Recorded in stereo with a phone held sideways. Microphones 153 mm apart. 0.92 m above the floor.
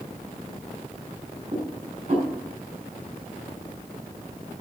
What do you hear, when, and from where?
1.5 s dishes clattering: 40° right (ahead or behind), 6 m